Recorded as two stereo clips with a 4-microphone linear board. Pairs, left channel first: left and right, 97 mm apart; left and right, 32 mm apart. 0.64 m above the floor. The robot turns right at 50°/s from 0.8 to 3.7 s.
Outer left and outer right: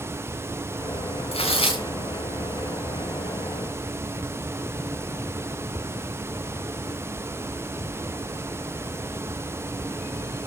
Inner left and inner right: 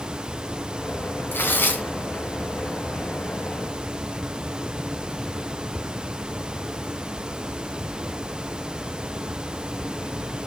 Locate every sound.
1.3 s tearing paper: 90° left, 2.5 m; by 1.9 s 65° left (ahead or behind), 2.5 m